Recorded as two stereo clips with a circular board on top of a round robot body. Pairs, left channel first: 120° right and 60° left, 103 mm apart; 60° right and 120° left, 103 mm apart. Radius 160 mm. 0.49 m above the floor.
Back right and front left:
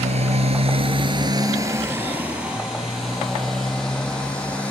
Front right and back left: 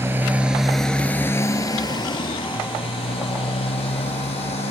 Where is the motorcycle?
55° left; by 4.7 s 40° right.